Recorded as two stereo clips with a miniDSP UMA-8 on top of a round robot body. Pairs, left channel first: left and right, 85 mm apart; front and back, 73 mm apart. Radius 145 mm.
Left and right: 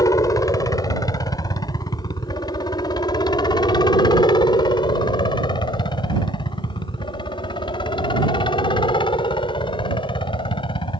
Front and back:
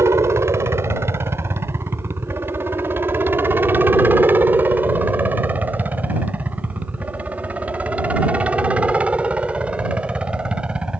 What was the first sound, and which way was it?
A helicopter, 130° left.